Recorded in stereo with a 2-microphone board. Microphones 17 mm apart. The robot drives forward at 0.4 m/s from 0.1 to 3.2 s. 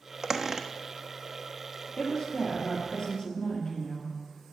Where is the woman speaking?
50° left (ahead or behind), 3 m; by 4.2 s 55° left (ahead or behind), 2.5 m.